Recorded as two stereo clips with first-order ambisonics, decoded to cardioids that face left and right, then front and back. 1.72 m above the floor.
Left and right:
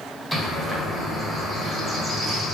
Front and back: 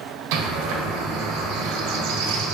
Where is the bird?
Straight behind, 0.8 m.